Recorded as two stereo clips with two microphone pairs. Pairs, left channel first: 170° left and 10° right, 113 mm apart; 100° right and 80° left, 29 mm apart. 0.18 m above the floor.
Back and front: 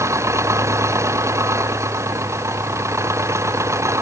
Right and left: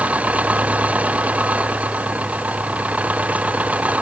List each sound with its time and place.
0.0 s an engine running: 50° left